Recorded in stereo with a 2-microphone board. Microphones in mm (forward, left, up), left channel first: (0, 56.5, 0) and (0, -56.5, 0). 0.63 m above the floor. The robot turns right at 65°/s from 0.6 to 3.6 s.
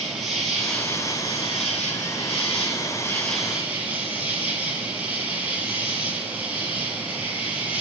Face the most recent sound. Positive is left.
turn(degrees=-165)